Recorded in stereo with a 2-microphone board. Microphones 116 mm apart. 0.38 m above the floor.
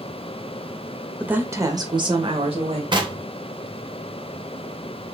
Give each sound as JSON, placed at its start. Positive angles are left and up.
{"t": 1.2, "sound": "a woman speaking", "side_deg": -10, "distance_m": 0.9}
{"t": 2.9, "sound": "knocking", "side_deg": -45, "distance_m": 0.8}